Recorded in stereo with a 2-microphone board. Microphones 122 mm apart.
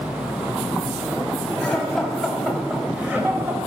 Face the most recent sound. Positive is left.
turn(degrees=-20)  # may be behind; listen again after turning